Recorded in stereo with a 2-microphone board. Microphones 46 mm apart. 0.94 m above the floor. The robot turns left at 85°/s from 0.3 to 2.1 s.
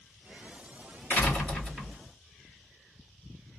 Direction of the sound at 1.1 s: 55° left.